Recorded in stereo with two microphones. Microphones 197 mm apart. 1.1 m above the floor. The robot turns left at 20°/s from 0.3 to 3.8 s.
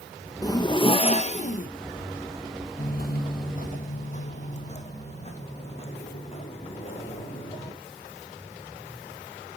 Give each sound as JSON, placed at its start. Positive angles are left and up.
{"t": 0.4, "sound": "a zipper", "side_deg": 20, "distance_m": 0.8}
{"t": 2.8, "sound": "footsteps", "side_deg": 45, "distance_m": 1.4}